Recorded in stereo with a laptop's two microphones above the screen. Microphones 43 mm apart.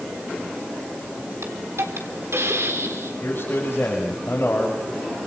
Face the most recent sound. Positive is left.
turn(degrees=50)  # may be behind; listen again after turning